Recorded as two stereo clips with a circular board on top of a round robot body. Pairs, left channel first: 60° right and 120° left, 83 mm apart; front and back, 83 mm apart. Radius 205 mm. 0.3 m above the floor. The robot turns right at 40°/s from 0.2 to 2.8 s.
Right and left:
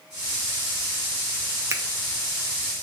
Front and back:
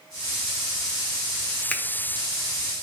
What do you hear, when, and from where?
1.7 s a finger snap: 75° left, 1.2 m; by 1.8 s 80° left, 1.2 m